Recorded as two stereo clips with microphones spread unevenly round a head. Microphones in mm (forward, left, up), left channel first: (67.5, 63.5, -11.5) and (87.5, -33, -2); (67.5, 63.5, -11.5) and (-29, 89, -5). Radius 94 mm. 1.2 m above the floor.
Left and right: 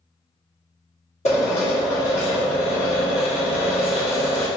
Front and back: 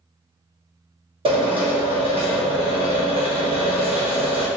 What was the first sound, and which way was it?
A drill, 140° left.